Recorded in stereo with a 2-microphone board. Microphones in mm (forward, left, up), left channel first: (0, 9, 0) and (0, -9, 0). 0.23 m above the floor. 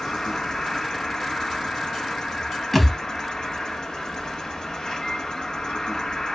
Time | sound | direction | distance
0.0 | an insect | 45° left (ahead or behind) | 1.0 m
2.7 | a thud | 5° left (ahead or behind) | 0.8 m